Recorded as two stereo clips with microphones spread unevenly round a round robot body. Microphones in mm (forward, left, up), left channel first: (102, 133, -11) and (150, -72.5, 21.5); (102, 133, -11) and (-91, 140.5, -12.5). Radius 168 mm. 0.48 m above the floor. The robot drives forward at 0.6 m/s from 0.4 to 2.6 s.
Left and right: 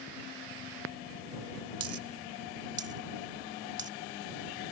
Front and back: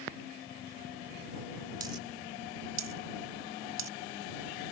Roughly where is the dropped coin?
Behind right.